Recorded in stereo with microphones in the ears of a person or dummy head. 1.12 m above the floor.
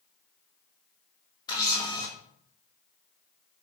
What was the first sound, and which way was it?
A camera shutter, 20° left (ahead or behind).